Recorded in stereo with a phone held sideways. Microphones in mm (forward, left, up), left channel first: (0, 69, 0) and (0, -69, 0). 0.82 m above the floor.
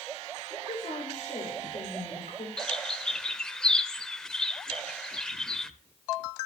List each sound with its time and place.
0.5 s a woman speaking: 75° left (ahead or behind), 3.5 m
2.6 s a bird: 5° left (ahead or behind), 0.5 m